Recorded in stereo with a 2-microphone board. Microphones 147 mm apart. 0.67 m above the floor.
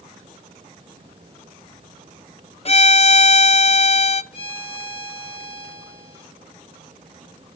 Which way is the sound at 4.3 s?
35° left (ahead or behind).